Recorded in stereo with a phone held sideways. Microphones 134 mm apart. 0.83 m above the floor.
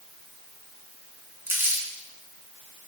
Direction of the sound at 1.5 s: 15° right (ahead or behind).